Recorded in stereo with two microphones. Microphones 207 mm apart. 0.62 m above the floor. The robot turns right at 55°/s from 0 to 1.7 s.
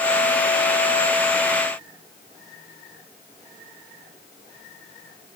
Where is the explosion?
No explosion in this recording.